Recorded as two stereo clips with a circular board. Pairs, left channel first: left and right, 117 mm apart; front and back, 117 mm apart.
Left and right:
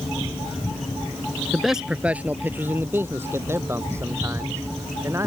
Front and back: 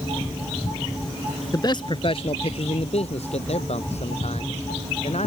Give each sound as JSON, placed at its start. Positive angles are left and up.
{"t": 1.5, "sound": "a man speaking", "azimuth_deg": 5}